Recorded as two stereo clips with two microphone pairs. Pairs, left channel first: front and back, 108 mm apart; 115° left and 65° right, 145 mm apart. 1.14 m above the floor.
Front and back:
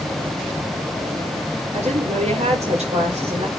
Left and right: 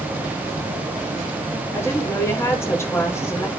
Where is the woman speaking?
175° right, 4.5 m.